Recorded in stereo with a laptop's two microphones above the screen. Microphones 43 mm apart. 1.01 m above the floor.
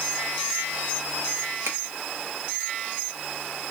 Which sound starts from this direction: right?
A finger snap, at 1.6 s.